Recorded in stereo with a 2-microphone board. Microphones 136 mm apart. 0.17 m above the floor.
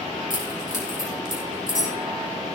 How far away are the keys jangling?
About 5 m.